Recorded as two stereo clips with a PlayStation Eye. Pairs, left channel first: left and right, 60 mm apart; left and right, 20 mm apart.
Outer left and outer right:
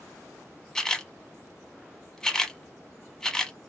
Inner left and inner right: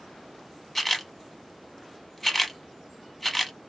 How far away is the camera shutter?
About 0.6 m.